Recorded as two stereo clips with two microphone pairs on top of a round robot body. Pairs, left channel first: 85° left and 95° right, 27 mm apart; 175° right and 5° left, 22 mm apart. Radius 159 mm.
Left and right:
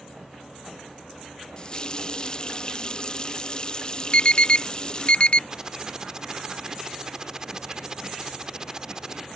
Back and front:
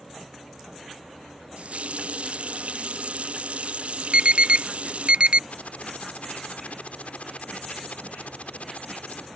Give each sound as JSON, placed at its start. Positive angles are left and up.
{"t": 1.6, "sound": "a running tap", "azimuth_deg": 25}
{"t": 4.1, "sound": "an alarm", "azimuth_deg": 40}
{"t": 5.5, "sound": "typing on a keyboard", "azimuth_deg": -160}